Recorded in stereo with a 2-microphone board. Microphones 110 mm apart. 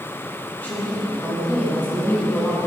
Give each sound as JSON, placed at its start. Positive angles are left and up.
{"t": 0.6, "sound": "a woman speaking", "side_deg": 15, "distance_m": 3.5}